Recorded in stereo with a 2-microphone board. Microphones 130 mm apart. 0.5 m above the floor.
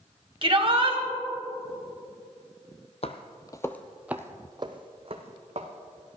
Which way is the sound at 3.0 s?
50° left (ahead or behind).